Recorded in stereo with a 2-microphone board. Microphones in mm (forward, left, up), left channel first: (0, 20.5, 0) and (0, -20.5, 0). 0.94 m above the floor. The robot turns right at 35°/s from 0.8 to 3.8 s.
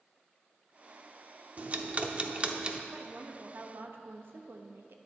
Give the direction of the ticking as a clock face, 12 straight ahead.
3 o'clock.